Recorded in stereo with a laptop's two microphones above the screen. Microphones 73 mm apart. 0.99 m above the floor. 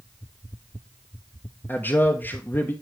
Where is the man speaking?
25° left (ahead or behind), 0.7 m.